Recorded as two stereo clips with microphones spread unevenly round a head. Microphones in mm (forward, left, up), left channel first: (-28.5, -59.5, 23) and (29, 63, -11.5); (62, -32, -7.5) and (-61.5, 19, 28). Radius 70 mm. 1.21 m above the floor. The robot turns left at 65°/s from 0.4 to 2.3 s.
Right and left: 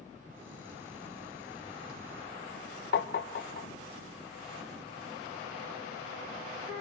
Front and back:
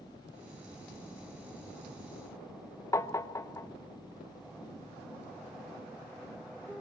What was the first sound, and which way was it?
Tapping, 90° right.